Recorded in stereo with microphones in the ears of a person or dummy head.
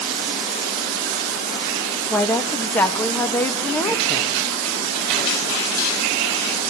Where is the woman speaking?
10° left (ahead or behind), 1.8 m.